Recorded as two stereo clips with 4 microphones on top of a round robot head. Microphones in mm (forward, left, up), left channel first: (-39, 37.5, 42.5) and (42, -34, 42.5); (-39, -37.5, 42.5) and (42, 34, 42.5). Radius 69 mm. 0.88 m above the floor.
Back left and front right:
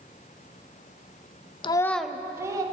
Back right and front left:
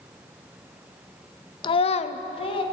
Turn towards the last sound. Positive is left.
turn(degrees=-100)